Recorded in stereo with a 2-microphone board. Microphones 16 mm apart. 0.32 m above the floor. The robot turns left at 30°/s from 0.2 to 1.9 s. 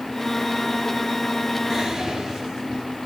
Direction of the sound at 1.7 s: 20° right (ahead or behind).